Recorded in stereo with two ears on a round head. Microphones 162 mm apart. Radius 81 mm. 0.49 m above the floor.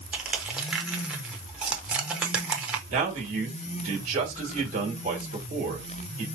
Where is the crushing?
5° right (ahead or behind), 0.6 m.